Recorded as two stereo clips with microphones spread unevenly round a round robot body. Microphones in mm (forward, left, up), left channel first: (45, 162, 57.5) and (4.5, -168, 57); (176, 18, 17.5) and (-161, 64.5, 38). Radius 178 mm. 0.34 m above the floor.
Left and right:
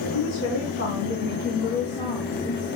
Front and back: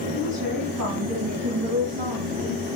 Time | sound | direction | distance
0.1 | a woman speaking | 125° left | 2.5 m